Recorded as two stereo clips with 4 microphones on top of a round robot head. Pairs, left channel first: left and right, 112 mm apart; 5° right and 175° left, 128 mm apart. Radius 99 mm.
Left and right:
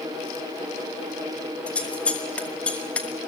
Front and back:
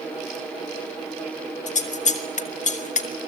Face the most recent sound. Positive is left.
turn(degrees=10)